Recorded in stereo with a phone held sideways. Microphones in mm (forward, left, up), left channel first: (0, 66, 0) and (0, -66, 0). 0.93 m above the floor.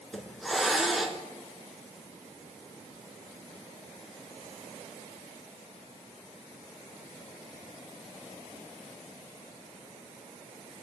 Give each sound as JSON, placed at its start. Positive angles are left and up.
{"t": 0.1, "sound": "a hiss", "side_deg": 0, "distance_m": 1.7}